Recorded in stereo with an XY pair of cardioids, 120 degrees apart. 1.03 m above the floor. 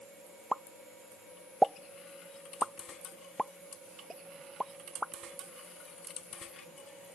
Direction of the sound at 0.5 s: Straight ahead.